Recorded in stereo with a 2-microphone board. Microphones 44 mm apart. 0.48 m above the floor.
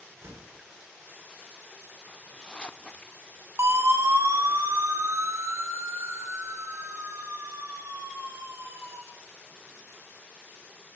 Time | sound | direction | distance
0.2 | a door slam | 80° right | 7 m
2.1 | a zipper | 20° left (ahead or behind) | 0.8 m
3.6 | a siren | 75° right (ahead or behind) | 6 m